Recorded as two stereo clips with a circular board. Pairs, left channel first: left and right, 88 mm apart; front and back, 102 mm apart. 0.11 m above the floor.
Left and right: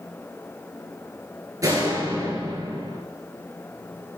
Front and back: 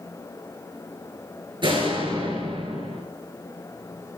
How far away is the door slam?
About 8.5 m.